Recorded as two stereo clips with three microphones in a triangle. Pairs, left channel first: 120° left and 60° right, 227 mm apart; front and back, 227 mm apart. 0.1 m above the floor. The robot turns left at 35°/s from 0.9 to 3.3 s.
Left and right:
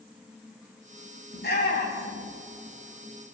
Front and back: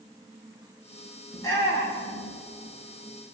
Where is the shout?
80° left, 10 m; by 2.3 s 45° left, 10 m.